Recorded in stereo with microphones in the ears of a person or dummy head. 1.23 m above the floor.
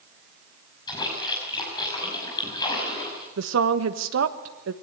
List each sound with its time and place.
0.9 s a splash: 25° left (ahead or behind), 6 m
3.4 s a woman speaking: 65° right (ahead or behind), 1.3 m